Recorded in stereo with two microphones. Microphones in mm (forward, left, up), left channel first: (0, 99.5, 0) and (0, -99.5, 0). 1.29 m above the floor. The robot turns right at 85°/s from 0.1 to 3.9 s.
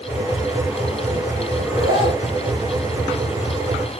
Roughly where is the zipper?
Behind.